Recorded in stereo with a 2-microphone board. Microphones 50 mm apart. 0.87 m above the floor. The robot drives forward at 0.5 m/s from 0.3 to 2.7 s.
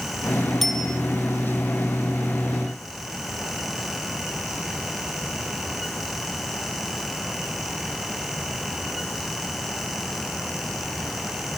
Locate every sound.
0.6 s a bicycle bell: 5° left (ahead or behind), 3.5 m